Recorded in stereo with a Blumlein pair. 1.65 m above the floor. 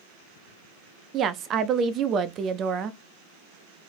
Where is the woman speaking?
25° right, 0.6 m.